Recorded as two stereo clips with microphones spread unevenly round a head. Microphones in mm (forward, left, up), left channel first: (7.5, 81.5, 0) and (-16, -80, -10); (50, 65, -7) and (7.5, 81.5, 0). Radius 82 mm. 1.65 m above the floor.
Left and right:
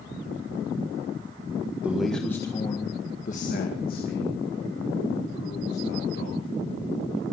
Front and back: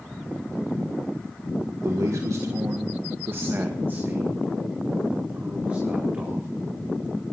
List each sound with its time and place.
1.8 s a man speaking: straight behind, 1.5 m; by 6.5 s 95° left, 4.5 m